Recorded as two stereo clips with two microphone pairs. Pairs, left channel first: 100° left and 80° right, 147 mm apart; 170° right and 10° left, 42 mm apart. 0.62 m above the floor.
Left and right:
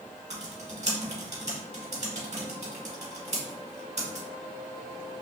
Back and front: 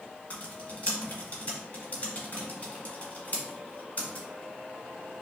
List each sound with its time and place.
0.3 s typing on a keyboard: 115° right, 1.4 m